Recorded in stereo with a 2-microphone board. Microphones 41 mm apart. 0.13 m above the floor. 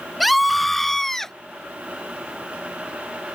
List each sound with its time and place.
0.2 s a scream: centre (ahead or behind); by 1.3 s 10° left (ahead or behind)